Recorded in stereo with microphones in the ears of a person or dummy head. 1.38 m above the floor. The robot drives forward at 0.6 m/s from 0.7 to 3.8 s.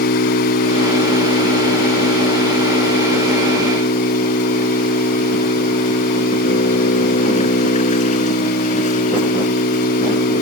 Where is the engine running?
55° left (ahead or behind); by 10.4 s 45° left (ahead or behind).